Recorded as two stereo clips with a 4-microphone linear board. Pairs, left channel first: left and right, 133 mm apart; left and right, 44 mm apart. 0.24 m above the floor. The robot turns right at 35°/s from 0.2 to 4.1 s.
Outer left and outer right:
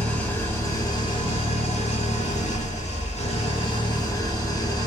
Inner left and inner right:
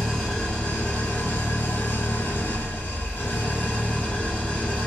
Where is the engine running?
10° left, 1.3 m; by 4.9 s 145° left, 1.3 m.